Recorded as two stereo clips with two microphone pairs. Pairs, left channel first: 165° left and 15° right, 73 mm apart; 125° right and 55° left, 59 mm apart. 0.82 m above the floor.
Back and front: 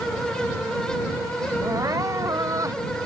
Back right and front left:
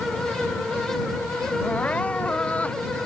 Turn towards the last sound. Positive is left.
turn(degrees=-55)